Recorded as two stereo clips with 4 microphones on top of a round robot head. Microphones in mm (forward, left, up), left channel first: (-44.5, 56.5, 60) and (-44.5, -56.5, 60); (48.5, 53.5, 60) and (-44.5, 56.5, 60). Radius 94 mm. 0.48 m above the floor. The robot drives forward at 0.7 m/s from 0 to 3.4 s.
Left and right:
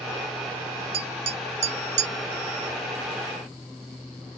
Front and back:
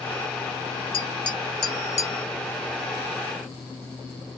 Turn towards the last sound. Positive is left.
turn(degrees=-115)